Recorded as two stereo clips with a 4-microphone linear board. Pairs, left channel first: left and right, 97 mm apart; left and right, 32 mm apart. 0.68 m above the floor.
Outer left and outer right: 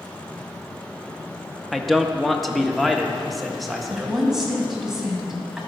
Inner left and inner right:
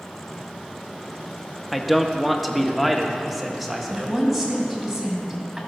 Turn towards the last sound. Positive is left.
turn(degrees=-5)  # may be behind; listen again after turning